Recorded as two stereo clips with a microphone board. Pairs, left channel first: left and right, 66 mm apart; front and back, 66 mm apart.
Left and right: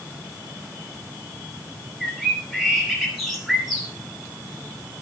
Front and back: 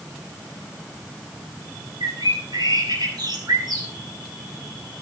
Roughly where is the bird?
Behind.